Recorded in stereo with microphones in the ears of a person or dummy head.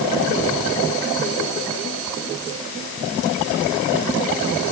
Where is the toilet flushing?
No toilet flushing in this recording.